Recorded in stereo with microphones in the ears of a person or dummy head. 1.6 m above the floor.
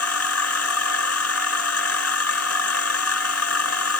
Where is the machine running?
85° left.